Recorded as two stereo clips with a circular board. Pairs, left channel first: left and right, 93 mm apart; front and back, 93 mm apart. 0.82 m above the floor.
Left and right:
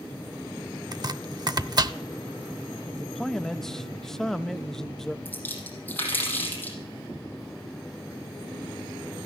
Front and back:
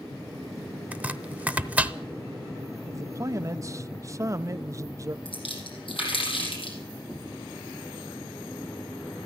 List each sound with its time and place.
0.9 s chopping: 115° right, 0.7 m
2.9 s a man speaking: 170° left, 0.5 m
5.2 s a splash: 20° left, 5 m